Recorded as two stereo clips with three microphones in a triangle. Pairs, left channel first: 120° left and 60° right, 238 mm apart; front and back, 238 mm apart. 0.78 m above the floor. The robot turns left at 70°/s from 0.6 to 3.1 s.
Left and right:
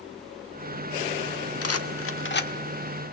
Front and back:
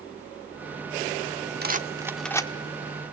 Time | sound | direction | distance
1.6 | a rattle | 130° left | 1.3 m